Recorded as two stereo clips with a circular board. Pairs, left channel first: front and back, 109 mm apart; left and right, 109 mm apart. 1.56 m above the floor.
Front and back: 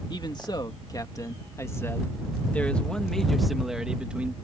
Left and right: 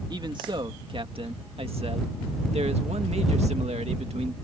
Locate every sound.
0.1 s a man speaking: 45° right; by 4.3 s 105° right